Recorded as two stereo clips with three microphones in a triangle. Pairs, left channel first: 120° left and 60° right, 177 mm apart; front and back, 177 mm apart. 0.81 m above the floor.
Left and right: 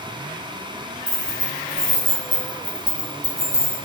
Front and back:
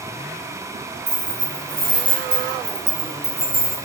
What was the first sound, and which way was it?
Keys jangling, 130° right.